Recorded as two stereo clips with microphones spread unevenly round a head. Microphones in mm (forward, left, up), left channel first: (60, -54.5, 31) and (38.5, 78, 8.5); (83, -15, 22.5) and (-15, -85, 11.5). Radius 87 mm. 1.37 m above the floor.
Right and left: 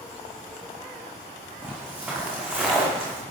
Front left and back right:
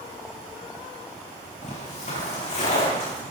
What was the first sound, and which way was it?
Footsteps, 20° left.